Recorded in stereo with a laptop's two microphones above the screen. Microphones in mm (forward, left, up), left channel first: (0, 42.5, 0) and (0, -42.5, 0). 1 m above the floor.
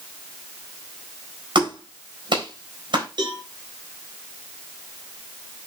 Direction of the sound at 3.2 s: 60° right (ahead or behind).